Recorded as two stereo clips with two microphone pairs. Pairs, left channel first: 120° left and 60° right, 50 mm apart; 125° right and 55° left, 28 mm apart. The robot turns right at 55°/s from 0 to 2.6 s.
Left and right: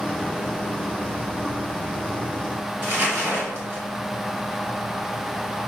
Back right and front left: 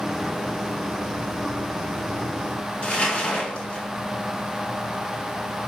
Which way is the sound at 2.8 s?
95° right.